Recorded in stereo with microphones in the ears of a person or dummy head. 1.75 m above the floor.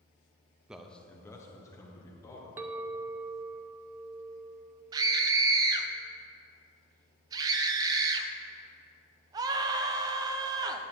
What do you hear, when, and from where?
0.7 s a man speaking: 15° right (ahead or behind), 0.6 m; by 2.5 s 15° left (ahead or behind), 2.5 m
2.6 s a clink: 15° right (ahead or behind), 0.6 m
4.9 s a scream: 30° right (ahead or behind), 0.9 m